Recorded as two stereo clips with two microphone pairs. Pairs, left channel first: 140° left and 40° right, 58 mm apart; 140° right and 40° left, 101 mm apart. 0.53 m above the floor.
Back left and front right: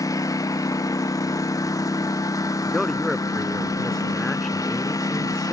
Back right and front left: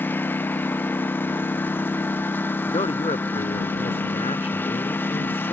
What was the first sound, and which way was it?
A lawn mower, 150° left.